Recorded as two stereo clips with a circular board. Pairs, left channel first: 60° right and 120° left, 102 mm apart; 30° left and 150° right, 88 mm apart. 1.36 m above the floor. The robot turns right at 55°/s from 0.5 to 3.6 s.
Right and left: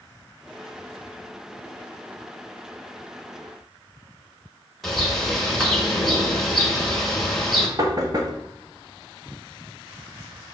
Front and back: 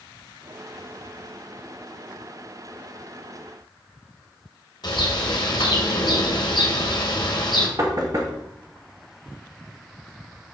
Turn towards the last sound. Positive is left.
turn(degrees=170)